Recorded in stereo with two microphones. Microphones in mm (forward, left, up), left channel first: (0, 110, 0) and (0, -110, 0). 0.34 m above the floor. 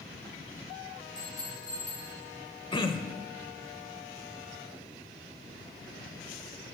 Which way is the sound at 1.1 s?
35° right (ahead or behind).